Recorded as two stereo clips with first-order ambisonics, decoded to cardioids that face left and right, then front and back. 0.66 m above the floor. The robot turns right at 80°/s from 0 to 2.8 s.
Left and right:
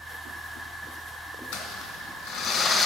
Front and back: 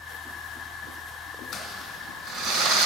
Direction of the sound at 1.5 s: 65° left.